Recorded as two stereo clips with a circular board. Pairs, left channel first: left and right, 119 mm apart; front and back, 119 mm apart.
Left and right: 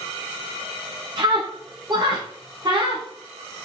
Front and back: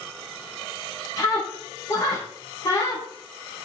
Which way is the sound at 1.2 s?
50° right.